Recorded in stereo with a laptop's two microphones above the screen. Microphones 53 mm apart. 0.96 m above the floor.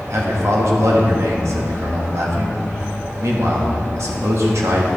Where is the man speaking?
70° right (ahead or behind), 1.6 m.